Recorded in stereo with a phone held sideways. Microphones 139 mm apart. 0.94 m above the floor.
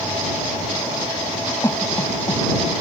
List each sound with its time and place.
1.6 s a cough: 20° left (ahead or behind)